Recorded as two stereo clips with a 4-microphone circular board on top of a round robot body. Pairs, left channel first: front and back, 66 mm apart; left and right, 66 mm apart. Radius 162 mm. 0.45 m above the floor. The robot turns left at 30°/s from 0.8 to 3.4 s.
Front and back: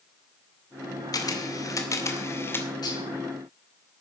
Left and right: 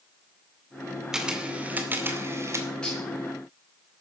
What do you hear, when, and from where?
1.1 s a camera shutter: 10° right, 2.5 m; by 2.7 s 55° right, 2.5 m
2.8 s dishes clattering: 15° left, 5.5 m; by 3.0 s 10° left, 5.5 m